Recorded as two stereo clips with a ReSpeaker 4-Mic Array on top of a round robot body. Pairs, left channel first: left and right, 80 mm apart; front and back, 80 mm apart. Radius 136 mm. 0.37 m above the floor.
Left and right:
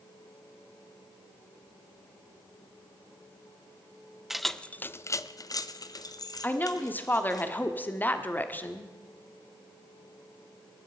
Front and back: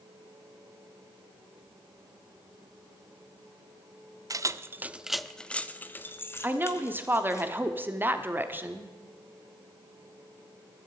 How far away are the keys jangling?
About 0.7 m.